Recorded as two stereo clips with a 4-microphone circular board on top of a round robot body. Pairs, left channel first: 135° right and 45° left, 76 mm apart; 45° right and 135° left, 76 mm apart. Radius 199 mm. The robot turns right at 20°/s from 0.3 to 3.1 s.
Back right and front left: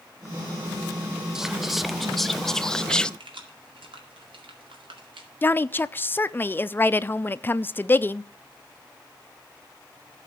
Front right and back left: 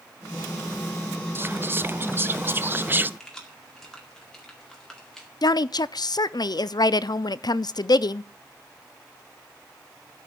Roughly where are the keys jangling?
Ahead left.